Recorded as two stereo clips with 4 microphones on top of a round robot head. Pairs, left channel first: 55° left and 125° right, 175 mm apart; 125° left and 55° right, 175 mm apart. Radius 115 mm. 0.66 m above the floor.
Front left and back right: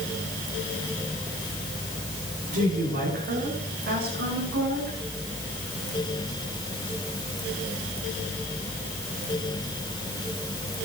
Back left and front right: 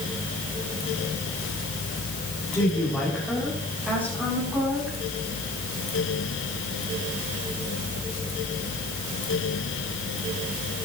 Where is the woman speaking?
150° right, 5 m; by 5.0 s 125° right, 7 m.